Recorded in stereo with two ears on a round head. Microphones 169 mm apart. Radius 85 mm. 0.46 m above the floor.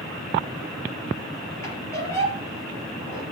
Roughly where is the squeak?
Centre.